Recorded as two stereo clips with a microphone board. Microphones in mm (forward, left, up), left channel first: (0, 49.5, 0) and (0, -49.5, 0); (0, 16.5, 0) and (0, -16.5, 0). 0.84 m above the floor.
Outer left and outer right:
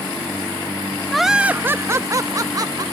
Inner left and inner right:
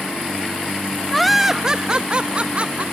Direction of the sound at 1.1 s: 5° left (ahead or behind).